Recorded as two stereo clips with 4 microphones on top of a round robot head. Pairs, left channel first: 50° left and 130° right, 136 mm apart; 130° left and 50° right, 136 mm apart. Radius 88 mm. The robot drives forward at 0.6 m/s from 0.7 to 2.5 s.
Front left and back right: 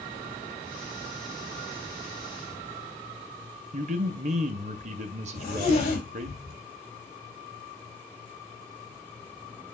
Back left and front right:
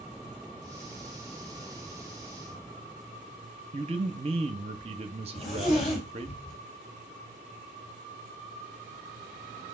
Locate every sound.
3.7 s a man speaking: 95° right, 0.7 m
5.3 s a zipper: 95° left, 4 m